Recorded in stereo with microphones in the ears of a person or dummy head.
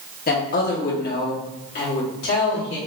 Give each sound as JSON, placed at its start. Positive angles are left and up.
{"t": 0.3, "sound": "a woman speaking", "side_deg": 45, "distance_m": 0.9}